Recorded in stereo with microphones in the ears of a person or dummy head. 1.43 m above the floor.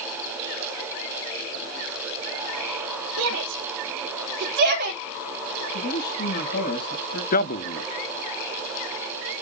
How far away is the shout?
About 2.5 m.